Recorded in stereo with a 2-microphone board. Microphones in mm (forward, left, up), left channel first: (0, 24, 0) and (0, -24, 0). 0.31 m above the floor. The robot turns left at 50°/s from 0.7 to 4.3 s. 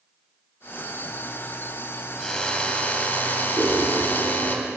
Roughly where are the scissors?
Centre.